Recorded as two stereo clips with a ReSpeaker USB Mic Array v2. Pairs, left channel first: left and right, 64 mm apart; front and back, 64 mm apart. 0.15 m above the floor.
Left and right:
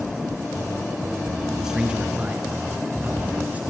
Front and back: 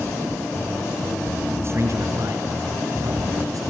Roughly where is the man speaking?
Behind.